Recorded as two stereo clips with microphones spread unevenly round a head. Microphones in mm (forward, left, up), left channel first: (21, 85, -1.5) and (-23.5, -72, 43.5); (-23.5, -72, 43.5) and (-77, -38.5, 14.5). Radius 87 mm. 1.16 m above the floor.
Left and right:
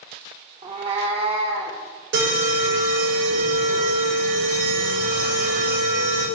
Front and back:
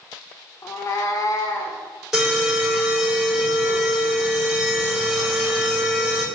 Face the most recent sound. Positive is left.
turn(degrees=-130)